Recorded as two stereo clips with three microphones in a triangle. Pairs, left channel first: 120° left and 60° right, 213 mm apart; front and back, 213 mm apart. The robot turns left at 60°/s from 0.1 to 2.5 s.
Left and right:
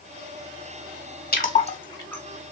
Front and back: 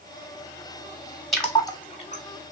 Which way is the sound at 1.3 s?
90° left.